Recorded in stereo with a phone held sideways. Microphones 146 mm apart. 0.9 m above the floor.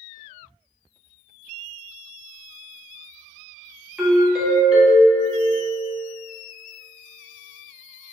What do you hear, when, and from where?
4.0 s a doorbell: 5° right (ahead or behind), 0.6 m